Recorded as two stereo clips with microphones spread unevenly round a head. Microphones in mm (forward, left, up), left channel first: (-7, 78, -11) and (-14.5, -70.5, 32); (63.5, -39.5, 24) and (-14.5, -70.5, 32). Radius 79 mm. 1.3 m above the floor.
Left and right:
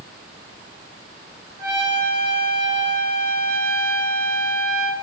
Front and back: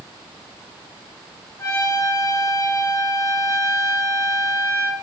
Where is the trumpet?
25° right, 3.5 m.